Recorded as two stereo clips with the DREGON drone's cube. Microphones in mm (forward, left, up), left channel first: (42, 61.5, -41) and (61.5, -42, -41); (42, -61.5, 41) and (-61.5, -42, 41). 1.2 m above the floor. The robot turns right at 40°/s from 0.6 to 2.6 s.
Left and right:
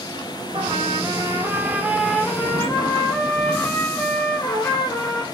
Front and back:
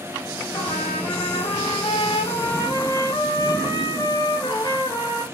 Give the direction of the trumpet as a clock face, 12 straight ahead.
2 o'clock.